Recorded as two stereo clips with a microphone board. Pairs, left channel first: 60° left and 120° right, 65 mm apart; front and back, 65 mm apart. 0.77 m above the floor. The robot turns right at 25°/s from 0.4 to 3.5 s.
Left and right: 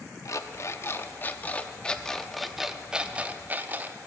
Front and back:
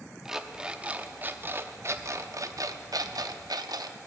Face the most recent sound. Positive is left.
turn(degrees=175)